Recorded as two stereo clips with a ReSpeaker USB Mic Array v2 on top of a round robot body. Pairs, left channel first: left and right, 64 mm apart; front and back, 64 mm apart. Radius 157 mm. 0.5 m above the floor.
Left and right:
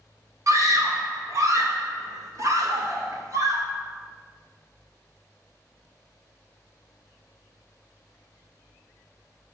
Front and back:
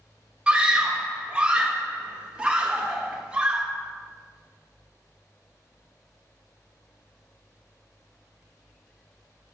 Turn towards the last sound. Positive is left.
turn(degrees=-110)